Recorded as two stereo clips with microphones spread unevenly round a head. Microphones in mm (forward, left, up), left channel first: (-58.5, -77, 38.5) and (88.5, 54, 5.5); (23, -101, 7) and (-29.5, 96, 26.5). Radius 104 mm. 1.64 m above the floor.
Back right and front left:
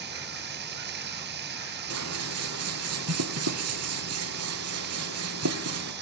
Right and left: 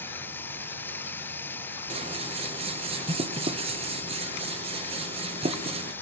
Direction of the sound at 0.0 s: 10° left.